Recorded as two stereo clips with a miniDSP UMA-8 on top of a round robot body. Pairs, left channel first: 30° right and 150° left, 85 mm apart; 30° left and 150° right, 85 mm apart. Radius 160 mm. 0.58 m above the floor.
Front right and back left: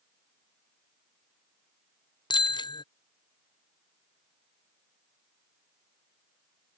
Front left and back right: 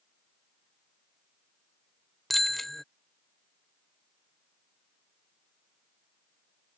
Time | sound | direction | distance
2.3 | a bicycle bell | 60° right | ?